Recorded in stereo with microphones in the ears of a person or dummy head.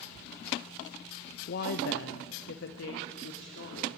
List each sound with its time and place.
1.5 s a woman speaking: 45° left (ahead or behind), 0.9 m; by 3.9 s 65° left (ahead or behind), 3.5 m